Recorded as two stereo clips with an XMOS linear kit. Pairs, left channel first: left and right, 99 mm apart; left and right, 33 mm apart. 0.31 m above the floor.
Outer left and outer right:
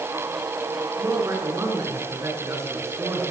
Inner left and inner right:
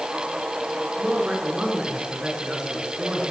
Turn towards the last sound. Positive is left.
turn(degrees=-30)  # may be behind; listen again after turning